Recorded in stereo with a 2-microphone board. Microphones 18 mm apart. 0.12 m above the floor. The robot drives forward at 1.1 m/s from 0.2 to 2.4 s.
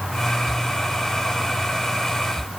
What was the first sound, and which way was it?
Only background noise.